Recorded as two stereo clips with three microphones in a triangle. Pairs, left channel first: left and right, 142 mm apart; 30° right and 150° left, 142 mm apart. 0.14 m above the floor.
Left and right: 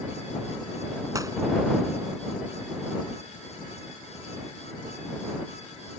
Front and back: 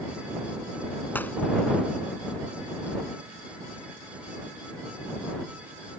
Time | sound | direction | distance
1.1 | a gunshot | 85° right | ?